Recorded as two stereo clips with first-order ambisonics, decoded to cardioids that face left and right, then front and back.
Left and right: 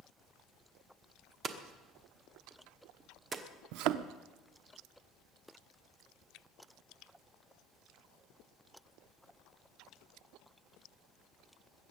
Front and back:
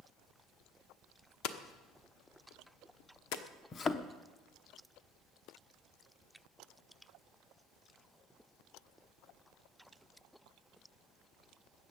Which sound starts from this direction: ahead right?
A thud, at 3.7 s.